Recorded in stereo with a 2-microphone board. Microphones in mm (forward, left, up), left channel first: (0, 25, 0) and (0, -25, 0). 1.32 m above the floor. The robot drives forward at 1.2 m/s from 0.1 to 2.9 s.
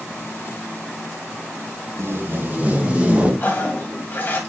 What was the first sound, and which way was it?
Tape being pulled, 60° right (ahead or behind).